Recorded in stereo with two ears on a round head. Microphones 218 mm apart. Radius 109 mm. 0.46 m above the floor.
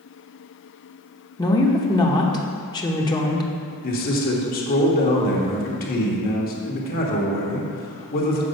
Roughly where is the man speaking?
Left.